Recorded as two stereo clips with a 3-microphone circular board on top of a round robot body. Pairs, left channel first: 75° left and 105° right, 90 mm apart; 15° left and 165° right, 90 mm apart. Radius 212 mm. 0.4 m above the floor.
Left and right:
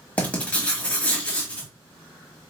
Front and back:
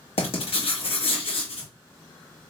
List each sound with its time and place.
0.2 s writing: straight ahead, 1.0 m